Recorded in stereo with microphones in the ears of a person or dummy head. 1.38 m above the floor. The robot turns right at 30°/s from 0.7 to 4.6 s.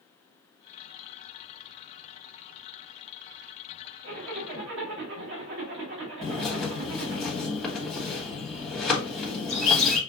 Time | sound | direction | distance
4.0 | a zipper | 45° right (ahead or behind) | 1.2 m
6.2 | a bird | 5° left (ahead or behind) | 1.6 m